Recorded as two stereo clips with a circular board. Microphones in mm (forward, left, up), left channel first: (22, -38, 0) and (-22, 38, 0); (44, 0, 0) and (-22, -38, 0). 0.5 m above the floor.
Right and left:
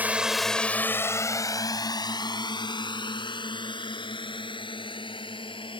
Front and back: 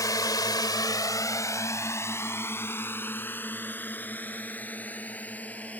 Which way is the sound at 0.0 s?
55° left.